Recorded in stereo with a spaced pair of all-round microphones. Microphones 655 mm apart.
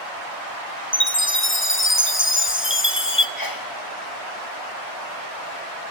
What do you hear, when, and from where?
0.9 s a chime: 20° left (ahead or behind), 1.0 m
3.4 s a sneeze: 30° left (ahead or behind), 1.3 m